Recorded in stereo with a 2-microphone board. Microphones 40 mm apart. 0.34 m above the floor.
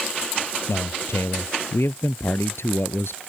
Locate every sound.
0.7 s a man speaking: 80° left; by 3.2 s 75° left (ahead or behind)